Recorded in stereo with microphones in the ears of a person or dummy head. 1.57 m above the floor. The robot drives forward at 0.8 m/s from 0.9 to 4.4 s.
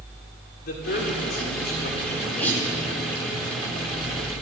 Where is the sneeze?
10° left (ahead or behind), 9.5 m.